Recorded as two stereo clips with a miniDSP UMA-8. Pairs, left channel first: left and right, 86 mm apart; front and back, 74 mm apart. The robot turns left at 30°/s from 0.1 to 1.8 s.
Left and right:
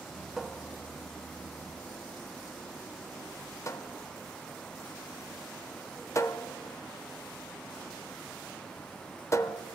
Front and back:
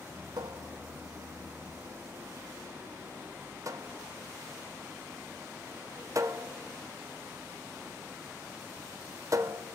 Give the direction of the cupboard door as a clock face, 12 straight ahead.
6 o'clock.